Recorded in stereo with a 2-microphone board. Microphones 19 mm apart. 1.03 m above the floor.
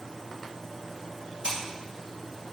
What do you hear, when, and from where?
1.4 s scissors: 65° right (ahead or behind), 1.8 m